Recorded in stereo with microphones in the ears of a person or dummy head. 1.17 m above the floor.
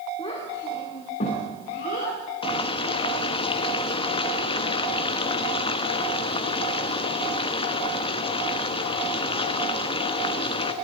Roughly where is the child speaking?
Left.